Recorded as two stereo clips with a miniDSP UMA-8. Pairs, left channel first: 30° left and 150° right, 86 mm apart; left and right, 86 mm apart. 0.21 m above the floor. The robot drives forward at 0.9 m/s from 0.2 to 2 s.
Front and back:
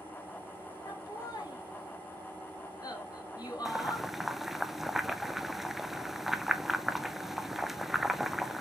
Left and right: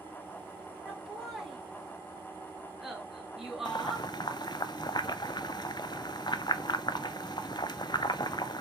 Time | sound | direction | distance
0.8 | laughter | 5° right | 4.5 m
3.6 | boiling | 125° left | 0.6 m